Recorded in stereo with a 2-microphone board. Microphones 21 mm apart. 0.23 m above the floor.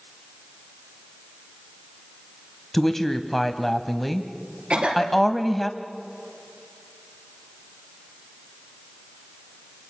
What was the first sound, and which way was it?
A woman speaking, 15° left (ahead or behind).